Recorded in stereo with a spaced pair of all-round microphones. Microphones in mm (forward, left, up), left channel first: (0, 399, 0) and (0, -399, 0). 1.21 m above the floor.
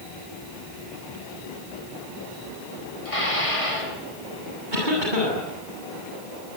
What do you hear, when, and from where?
3.0 s dishes clattering: 40° left (ahead or behind), 7.5 m
4.7 s a cough: 75° right (ahead or behind), 8.5 m